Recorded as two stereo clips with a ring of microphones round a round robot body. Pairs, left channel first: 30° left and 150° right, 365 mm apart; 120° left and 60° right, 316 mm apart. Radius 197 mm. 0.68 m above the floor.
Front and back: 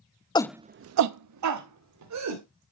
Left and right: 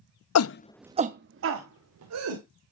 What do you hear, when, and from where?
0.3 s a shout: 105° left, 0.7 m; by 2.4 s 105° right, 2.5 m